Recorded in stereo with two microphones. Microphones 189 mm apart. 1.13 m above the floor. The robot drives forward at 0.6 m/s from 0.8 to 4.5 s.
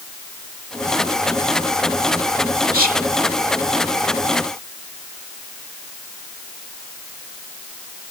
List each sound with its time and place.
2.7 s whispering: 50° right (ahead or behind); by 3.0 s 45° right (ahead or behind)